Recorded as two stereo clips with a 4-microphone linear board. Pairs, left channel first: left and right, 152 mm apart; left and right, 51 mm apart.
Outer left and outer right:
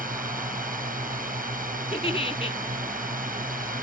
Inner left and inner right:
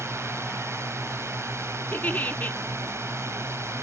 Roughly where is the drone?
Right.